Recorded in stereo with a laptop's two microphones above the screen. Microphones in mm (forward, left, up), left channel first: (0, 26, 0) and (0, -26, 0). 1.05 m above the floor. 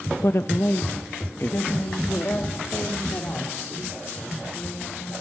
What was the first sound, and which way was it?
A woman speaking, 65° left (ahead or behind).